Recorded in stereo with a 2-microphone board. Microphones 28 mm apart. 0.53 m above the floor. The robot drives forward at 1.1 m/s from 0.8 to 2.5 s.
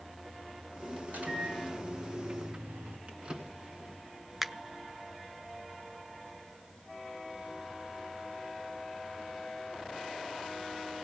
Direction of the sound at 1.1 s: 65° right (ahead or behind).